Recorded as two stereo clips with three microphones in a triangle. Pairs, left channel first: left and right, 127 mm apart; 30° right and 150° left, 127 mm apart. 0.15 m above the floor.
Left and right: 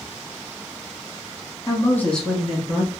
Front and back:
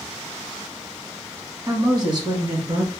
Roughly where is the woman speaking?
Behind left.